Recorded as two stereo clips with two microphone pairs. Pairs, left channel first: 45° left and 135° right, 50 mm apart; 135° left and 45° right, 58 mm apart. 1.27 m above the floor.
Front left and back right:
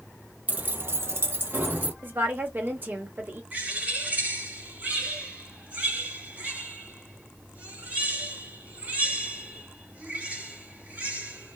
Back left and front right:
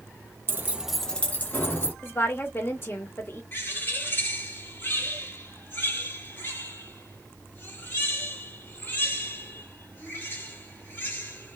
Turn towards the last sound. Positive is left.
turn(degrees=175)